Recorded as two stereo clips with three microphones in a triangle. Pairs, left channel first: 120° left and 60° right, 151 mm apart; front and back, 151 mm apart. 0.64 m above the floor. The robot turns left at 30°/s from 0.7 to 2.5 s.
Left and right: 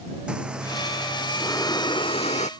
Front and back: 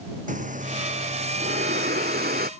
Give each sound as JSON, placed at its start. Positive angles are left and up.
{"t": 0.3, "sound": "breathing", "azimuth_deg": -145}